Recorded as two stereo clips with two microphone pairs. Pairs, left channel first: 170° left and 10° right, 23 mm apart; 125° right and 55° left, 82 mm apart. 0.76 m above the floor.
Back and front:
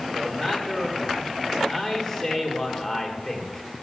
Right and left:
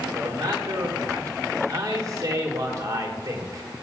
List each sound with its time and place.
0.1 s a man speaking: 100° left, 1.7 m